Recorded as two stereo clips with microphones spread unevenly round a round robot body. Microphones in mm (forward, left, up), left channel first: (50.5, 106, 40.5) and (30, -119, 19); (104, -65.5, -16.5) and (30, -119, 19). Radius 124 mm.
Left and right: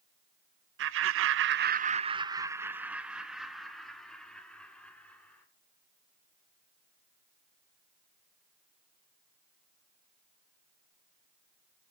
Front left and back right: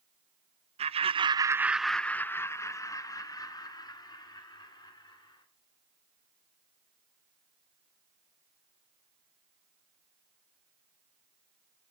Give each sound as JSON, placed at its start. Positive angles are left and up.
{"t": 0.8, "sound": "laughter", "azimuth_deg": -125, "distance_m": 0.6}